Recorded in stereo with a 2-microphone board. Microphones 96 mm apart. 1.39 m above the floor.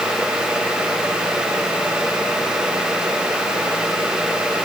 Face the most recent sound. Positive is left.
No sound to turn to.